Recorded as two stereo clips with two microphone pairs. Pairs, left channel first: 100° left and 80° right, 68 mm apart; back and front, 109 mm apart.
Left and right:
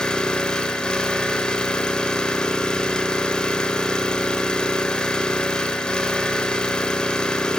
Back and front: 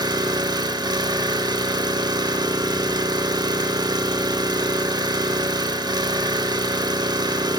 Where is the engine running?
25° left, 1.2 m.